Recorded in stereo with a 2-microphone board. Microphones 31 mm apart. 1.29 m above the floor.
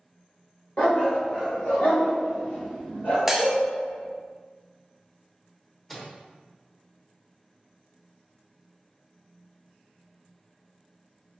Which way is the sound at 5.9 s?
10° left (ahead or behind).